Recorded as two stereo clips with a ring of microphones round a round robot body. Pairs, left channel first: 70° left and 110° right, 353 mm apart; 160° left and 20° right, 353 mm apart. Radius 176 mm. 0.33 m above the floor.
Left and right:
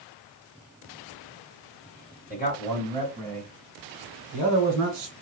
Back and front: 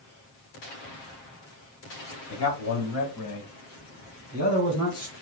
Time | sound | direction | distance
2.3 | a man speaking | 130° left | 1.8 m